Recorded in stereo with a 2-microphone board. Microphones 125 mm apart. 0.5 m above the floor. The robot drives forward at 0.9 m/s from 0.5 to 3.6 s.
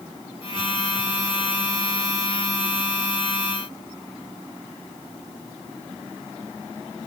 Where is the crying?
I don't hear crying.